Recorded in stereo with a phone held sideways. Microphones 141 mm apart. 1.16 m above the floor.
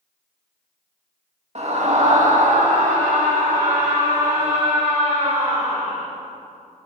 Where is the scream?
55° right (ahead or behind), 2 m; by 6.1 s 80° right, 4 m.